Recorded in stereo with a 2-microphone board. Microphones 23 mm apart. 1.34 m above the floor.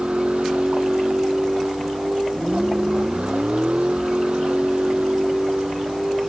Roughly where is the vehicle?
Right.